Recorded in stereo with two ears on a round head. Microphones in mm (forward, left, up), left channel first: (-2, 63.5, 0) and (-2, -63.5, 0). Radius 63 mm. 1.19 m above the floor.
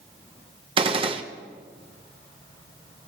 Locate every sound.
0.8 s a gunshot: 40° right (ahead or behind), 0.9 m